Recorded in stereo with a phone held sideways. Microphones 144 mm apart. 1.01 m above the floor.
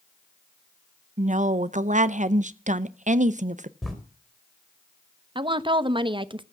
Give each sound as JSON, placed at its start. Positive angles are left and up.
{"t": 1.2, "sound": "a woman speaking", "side_deg": -60, "distance_m": 0.6}
{"t": 3.8, "sound": "writing", "side_deg": 0, "distance_m": 3.5}
{"t": 5.3, "sound": "a woman speaking", "side_deg": -35, "distance_m": 0.8}